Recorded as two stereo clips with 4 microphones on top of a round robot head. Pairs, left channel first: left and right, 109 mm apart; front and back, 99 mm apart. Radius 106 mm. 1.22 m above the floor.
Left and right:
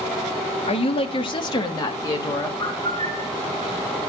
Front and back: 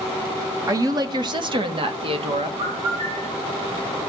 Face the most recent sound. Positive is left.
turn(degrees=160)